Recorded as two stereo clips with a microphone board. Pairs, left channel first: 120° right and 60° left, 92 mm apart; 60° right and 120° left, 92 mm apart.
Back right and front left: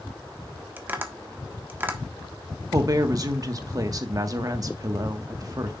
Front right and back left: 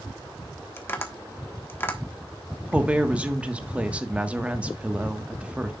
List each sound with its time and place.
0.8 s tapping: straight ahead, 1.4 m
2.7 s a woman speaking: 50° left, 1.4 m